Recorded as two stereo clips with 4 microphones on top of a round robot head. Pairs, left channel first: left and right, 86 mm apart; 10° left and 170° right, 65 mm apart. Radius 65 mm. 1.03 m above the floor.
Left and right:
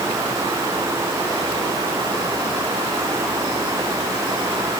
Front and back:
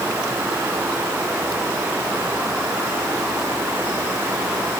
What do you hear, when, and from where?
Only background noise.